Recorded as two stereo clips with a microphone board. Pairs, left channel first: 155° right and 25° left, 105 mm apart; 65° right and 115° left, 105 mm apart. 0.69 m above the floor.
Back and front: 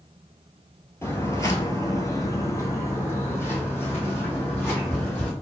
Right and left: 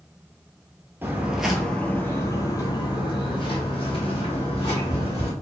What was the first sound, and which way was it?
Footsteps, 160° left.